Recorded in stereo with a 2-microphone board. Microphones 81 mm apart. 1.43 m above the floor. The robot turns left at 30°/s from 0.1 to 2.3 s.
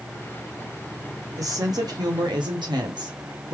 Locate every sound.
1.4 s a woman speaking: 45° right (ahead or behind), 1.2 m; by 3.5 s 75° right (ahead or behind), 1.2 m